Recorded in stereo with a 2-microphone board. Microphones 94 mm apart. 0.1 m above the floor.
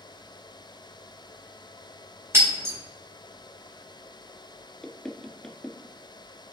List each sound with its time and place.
2.3 s breaking glass: 25° right (ahead or behind), 3.5 m
4.8 s knocking: 5° left (ahead or behind), 0.8 m